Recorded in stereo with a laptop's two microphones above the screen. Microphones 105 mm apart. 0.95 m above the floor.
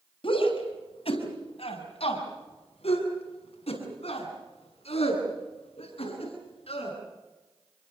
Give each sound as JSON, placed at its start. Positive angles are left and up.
{"t": 0.2, "sound": "a shout", "side_deg": 65, "distance_m": 5.5}